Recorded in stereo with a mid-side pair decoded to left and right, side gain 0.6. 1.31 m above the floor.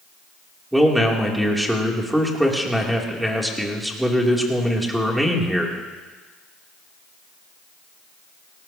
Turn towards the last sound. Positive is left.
turn(degrees=-5)